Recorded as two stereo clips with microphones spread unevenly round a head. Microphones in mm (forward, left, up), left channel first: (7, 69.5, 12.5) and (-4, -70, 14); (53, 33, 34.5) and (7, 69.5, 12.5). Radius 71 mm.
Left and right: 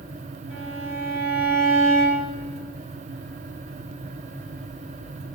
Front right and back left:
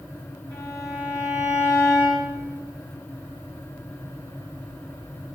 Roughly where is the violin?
Behind right.